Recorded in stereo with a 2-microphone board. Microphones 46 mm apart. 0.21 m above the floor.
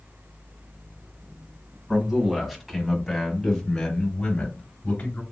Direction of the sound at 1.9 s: 20° right (ahead or behind).